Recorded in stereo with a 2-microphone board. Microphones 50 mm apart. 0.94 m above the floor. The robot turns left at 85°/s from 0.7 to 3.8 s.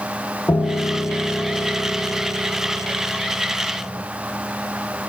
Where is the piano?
80° left, 0.8 m; by 4.0 s straight behind, 0.8 m.